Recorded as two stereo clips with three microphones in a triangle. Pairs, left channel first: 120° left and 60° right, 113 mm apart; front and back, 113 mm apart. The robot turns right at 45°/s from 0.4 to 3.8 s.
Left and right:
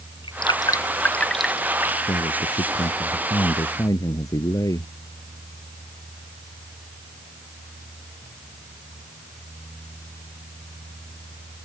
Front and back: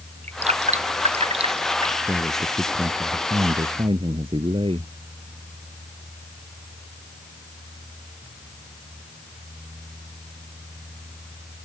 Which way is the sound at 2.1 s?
90° left.